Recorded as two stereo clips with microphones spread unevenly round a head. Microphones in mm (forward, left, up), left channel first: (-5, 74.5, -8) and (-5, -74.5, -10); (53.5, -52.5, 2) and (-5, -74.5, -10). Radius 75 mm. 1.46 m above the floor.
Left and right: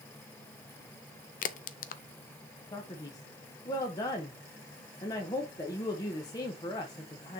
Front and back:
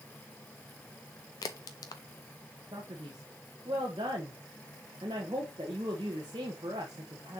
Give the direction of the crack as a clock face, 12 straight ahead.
10 o'clock.